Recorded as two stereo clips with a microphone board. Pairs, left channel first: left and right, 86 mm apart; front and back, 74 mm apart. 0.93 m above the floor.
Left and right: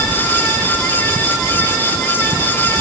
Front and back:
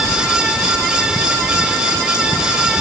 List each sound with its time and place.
Only background noise.